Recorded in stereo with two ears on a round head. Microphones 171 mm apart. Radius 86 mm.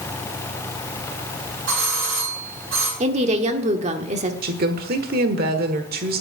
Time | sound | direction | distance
1.7 | a doorbell | 80° right | 8 m
3.0 | a woman speaking | 35° right (ahead or behind) | 1.3 m
4.4 | a woman speaking | 55° right (ahead or behind) | 1.2 m